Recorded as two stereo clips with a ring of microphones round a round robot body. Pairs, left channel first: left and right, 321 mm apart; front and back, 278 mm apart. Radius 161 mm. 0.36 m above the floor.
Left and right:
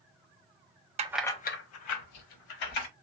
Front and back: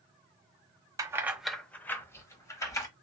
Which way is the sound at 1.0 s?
120° right.